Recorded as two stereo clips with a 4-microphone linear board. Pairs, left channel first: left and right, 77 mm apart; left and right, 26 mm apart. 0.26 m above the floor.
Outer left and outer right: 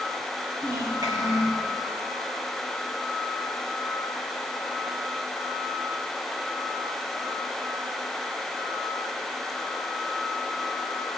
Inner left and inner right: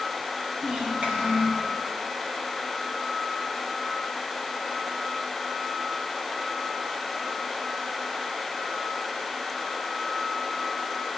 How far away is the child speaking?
About 2.5 m.